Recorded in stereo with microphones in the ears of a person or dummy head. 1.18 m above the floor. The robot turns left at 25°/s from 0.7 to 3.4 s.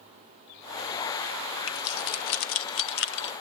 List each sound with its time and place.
1.7 s keys jangling: 70° left (ahead or behind), 0.9 m; by 3.3 s 65° left (ahead or behind), 0.9 m